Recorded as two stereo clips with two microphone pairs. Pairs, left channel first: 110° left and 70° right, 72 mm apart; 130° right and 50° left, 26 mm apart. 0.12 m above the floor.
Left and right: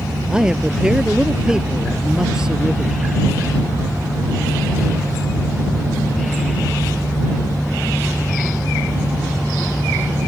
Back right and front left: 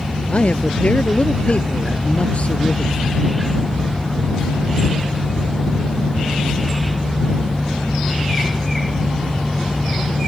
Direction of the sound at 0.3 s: 145° right.